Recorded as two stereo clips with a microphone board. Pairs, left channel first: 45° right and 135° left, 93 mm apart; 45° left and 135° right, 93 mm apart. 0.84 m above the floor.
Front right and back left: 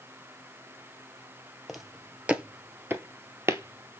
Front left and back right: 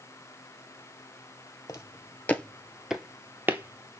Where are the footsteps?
45° left, 0.9 m; by 4.0 s straight behind, 1.1 m.